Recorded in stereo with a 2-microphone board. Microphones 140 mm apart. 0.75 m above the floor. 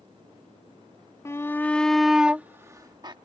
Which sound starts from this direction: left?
A shout, at 1.2 s.